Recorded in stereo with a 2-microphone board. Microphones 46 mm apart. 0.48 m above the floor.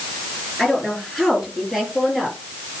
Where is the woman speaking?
Centre (ahead or behind), 7 m; by 2.4 s 10° right (ahead or behind), 8.5 m.